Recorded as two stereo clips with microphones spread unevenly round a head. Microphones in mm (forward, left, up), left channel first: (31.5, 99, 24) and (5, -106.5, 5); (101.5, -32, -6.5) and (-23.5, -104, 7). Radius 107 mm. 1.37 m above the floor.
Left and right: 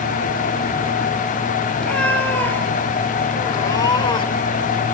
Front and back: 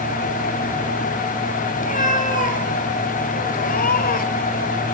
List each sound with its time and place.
1.8 s a cat meowing: straight ahead, 3 m; by 4.5 s 25° left, 1.8 m